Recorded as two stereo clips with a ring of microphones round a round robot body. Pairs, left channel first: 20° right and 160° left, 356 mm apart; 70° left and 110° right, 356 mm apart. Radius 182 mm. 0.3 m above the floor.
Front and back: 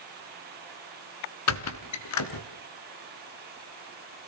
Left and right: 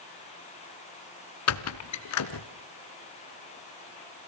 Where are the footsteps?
No footsteps in this recording.